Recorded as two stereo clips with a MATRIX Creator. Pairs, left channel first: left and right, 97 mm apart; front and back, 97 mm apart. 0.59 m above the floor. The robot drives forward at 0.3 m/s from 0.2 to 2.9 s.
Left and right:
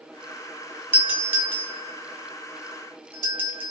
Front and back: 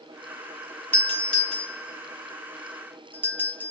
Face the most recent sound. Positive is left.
turn(degrees=-130)